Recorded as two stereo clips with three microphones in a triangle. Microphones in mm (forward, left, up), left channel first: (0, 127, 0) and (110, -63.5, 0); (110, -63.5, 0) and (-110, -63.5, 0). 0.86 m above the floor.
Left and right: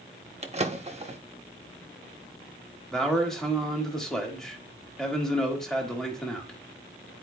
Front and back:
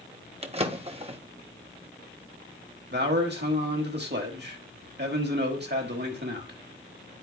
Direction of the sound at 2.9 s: 155° right.